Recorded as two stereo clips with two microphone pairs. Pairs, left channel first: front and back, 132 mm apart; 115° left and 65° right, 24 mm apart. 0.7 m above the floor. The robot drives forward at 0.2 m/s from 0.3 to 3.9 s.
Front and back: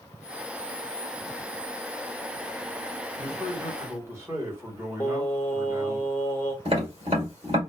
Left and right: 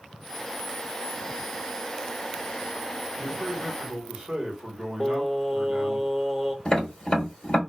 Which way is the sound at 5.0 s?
50° left.